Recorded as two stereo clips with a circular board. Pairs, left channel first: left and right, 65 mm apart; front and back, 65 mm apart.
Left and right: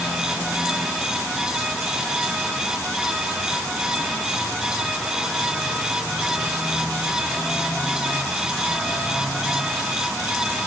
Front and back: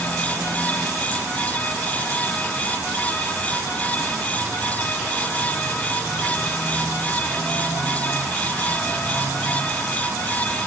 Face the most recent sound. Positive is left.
No sound to turn to.